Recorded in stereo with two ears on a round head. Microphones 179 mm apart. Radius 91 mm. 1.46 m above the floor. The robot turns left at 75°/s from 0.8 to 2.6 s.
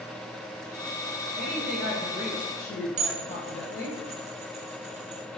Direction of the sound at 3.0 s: 35° right (ahead or behind).